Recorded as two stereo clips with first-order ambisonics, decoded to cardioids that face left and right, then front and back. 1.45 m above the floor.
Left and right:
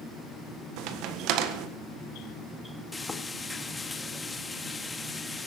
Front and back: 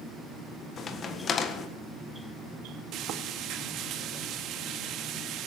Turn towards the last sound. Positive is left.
turn(degrees=165)